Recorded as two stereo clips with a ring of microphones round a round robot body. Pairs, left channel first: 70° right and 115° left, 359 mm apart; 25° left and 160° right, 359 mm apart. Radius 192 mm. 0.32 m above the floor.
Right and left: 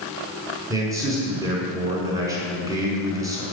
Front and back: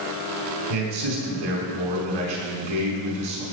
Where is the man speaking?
165° right, 5 m.